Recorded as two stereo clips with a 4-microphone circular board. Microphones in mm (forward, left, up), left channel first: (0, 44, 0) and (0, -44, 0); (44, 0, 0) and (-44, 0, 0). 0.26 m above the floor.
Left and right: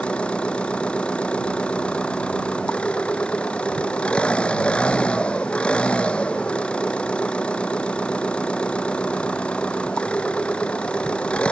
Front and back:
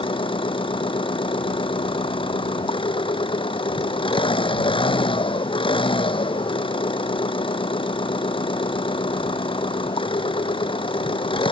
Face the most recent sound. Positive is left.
turn(degrees=10)